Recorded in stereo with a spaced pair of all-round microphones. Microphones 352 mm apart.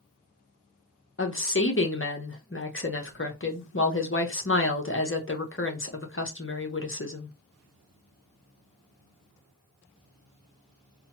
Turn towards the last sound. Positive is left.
turn(degrees=35)  # may be behind; listen again after turning